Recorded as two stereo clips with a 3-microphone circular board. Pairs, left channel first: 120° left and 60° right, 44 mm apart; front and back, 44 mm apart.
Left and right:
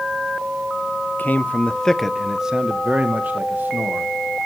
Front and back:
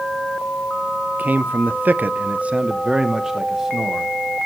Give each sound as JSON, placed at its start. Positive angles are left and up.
{"t": 1.2, "sound": "a man speaking", "azimuth_deg": 145, "distance_m": 0.7}